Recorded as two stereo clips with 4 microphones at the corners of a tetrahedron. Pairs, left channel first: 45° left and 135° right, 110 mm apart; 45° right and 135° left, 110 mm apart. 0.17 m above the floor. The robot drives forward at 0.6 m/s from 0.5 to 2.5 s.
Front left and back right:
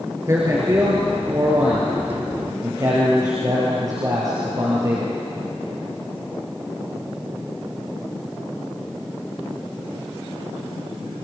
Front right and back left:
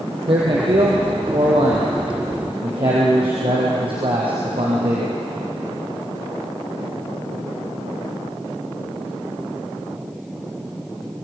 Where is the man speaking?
165° left, 3.5 m; by 5.2 s 170° left, 4.5 m.